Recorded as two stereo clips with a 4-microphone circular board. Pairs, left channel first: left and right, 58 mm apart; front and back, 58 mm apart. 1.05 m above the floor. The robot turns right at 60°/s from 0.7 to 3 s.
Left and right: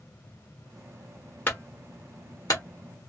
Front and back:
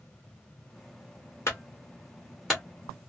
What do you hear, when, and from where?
1.5 s a clunk: 30° left, 1.2 m; by 2.6 s 100° left, 1.2 m